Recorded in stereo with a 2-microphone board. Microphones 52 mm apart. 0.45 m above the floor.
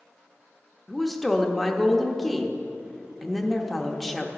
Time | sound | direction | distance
0.9 | a woman speaking | centre (ahead or behind) | 0.7 m